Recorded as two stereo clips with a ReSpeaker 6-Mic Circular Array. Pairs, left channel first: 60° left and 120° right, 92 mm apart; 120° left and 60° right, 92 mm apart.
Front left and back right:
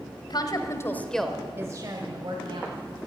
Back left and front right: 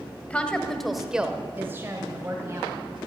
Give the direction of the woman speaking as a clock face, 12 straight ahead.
10 o'clock.